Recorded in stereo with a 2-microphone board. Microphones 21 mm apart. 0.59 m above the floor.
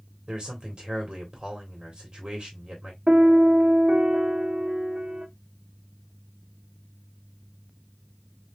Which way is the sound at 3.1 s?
40° right (ahead or behind).